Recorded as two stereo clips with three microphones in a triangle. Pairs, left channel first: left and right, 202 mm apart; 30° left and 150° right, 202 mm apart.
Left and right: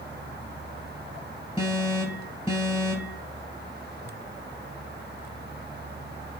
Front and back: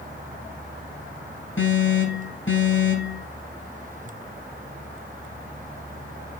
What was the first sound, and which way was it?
An alarm, 25° left.